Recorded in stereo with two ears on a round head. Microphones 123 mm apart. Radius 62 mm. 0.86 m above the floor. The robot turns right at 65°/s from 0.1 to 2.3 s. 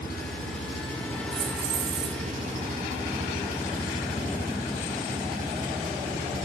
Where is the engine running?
95° left, 6.5 m; by 6.5 s 120° right, 6.5 m.